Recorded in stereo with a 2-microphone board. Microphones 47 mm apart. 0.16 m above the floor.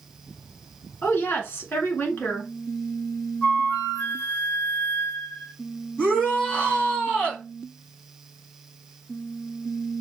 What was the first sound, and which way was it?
A woman speaking, 45° left (ahead or behind).